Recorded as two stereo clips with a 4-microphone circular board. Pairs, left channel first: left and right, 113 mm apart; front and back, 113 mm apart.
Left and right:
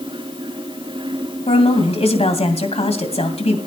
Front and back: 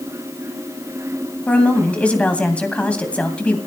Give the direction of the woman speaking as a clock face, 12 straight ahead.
9 o'clock.